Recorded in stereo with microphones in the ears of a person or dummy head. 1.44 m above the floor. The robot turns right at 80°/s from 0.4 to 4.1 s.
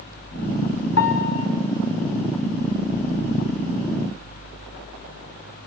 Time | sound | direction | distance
1.0 | a piano | 105° left | 5.5 m